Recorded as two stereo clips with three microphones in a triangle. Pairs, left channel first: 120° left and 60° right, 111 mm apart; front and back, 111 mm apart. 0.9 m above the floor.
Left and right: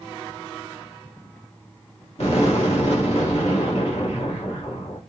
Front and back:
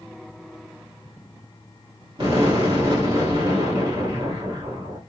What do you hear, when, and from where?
2.2 s an explosion: 140° left, 2.5 m